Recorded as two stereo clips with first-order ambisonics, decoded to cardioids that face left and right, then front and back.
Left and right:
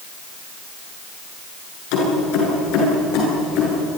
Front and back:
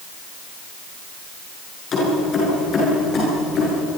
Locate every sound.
1.9 s keys jangling: 65° left, 9.5 m; by 3.8 s 60° left, 11 m